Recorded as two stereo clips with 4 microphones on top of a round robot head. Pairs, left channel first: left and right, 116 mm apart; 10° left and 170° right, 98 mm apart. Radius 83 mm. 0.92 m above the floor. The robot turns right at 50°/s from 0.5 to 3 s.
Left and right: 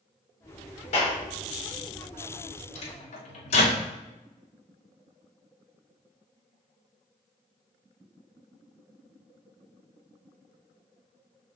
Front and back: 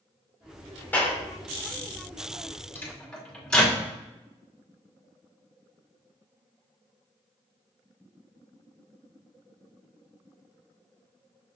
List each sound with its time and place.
0.9 s a clap: 80° left, 3 m; by 1.2 s 95° left, 3 m
2.8 s a microwave: 80° left, 3 m; by 3.8 s 90° left, 3 m